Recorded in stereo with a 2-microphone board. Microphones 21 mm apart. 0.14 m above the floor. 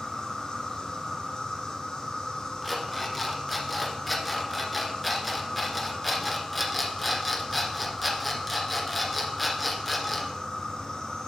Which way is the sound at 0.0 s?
45° left (ahead or behind).